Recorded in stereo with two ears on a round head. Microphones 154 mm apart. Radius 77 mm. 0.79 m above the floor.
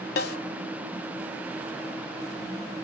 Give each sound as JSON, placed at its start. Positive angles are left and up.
{"t": 0.2, "sound": "a snare drum", "side_deg": 65, "distance_m": 0.8}